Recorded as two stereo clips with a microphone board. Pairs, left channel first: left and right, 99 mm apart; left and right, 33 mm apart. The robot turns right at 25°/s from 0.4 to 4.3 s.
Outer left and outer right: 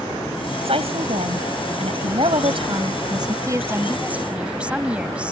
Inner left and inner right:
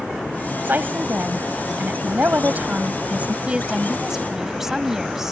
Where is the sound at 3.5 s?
35° right (ahead or behind); by 5.3 s 10° right (ahead or behind).